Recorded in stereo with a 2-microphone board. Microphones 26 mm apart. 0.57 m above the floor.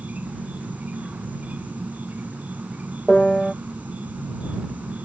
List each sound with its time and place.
0.0 s an insect: 80° right
3.1 s a piano: 5° left (ahead or behind)